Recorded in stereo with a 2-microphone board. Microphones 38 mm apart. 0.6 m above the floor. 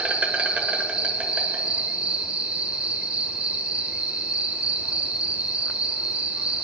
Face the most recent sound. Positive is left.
turn(degrees=-35)  # may be behind; listen again after turning